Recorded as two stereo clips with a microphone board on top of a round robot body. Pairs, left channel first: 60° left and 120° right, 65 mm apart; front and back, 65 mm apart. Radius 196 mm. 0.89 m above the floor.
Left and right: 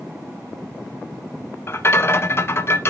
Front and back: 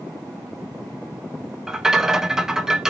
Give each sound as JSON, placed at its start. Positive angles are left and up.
{"t": 1.7, "sound": "a rattle", "azimuth_deg": 100, "distance_m": 0.5}